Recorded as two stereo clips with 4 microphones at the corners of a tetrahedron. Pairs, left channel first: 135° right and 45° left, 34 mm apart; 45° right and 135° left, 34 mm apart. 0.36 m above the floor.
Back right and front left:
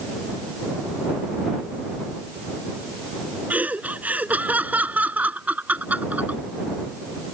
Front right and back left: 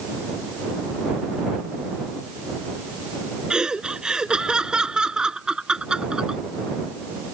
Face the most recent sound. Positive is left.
turn(degrees=70)